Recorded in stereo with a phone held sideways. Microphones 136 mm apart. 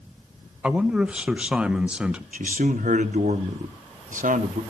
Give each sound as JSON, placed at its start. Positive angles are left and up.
{"t": 0.6, "sound": "a man speaking", "side_deg": -10, "distance_m": 0.7}
{"t": 2.3, "sound": "a man speaking", "side_deg": -70, "distance_m": 1.3}